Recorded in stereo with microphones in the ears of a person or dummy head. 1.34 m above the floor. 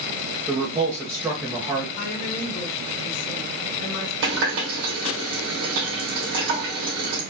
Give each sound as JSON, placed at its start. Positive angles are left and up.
{"t": 0.5, "sound": "a man speaking", "side_deg": -10, "distance_m": 0.8}
{"t": 2.0, "sound": "a woman speaking", "side_deg": 60, "distance_m": 1.6}
{"t": 4.2, "sound": "a running tap", "side_deg": -70, "distance_m": 2.0}